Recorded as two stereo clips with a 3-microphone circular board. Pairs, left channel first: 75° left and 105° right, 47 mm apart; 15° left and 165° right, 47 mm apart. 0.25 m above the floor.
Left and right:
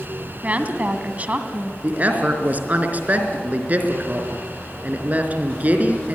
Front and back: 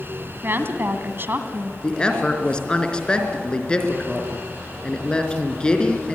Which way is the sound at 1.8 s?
55° right.